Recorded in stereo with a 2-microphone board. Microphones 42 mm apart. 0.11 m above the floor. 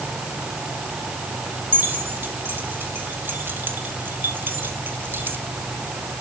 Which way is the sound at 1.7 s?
60° right (ahead or behind).